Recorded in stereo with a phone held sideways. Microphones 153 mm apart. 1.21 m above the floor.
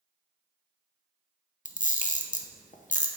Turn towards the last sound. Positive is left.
turn(degrees=55)  # may be behind; listen again after turning